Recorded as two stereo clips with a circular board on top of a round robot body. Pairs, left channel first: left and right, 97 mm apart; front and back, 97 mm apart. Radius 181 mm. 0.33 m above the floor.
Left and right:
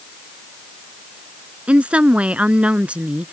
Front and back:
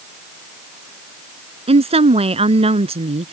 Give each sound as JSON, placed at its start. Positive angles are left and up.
{"t": 1.7, "sound": "a woman speaking", "azimuth_deg": -170}